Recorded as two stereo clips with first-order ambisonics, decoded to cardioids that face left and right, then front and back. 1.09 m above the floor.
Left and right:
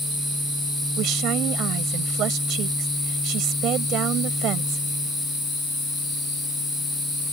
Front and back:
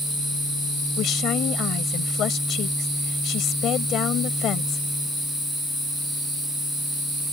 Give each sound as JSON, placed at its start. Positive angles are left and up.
{"t": 1.0, "sound": "a woman speaking", "azimuth_deg": -50}